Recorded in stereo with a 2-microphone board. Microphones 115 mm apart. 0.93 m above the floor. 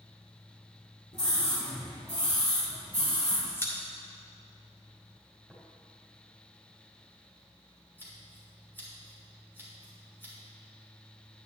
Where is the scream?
70° left (ahead or behind), 2.5 m; by 3.4 s 80° left, 4.5 m.